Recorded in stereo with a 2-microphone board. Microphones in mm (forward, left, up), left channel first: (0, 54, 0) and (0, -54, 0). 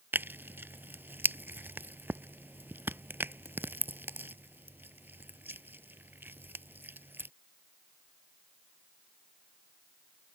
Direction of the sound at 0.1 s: 20° right (ahead or behind).